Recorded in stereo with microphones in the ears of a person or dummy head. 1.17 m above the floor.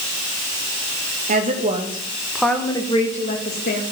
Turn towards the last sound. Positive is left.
turn(degrees=55)  # may be behind; listen again after turning